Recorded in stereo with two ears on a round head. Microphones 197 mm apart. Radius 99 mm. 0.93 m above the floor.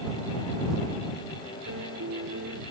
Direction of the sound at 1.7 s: 55° right (ahead or behind).